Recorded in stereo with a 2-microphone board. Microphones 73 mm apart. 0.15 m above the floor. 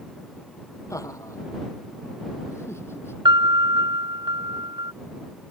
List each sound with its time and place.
0.9 s laughter: 50° left (ahead or behind); by 3.1 s 35° left (ahead or behind)
3.2 s a piano: 90° right